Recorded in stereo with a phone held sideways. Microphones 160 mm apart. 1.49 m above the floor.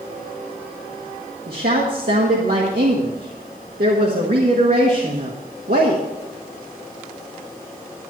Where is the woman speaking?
70° right (ahead or behind), 1.6 m.